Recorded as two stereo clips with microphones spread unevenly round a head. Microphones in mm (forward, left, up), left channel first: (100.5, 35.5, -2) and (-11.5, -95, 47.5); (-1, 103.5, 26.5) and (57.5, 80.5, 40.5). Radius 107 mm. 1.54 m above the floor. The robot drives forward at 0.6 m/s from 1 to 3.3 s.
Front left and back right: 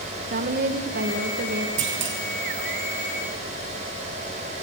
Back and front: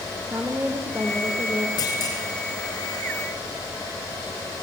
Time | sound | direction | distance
0.3 | a woman speaking | 95° right | 2.0 m
1.8 | a clunk | 165° right | 2.5 m